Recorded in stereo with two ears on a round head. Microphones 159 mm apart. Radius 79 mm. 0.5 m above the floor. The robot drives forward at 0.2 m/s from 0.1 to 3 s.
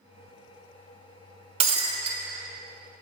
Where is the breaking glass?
35° right (ahead or behind), 0.7 m; by 2.2 s 30° right (ahead or behind), 0.8 m.